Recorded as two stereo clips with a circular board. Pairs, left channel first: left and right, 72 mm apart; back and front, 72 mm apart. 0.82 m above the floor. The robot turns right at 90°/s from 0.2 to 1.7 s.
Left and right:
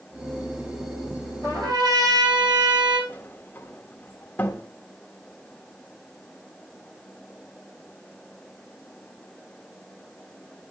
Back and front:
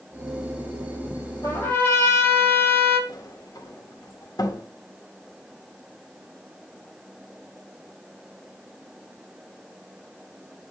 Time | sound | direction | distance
1.4 | a trumpet | 140° right | 9 m
3.1 | a sliding door | 155° left | 1.2 m